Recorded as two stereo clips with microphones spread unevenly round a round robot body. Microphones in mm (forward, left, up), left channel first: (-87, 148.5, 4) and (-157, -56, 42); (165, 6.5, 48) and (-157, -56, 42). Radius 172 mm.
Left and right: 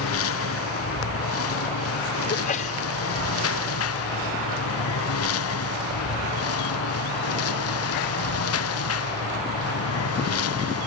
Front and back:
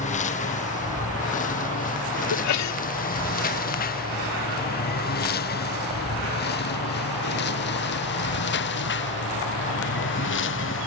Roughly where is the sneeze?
Ahead left.